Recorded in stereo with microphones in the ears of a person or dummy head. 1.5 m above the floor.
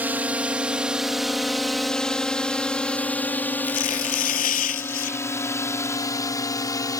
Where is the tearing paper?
40° left (ahead or behind).